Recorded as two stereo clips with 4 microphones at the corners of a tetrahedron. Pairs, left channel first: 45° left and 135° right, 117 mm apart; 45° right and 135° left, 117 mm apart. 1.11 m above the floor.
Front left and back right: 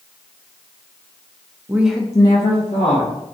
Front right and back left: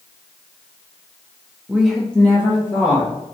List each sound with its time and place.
1.7 s a woman speaking: 160° right, 0.5 m; by 3.1 s 20° left, 1.2 m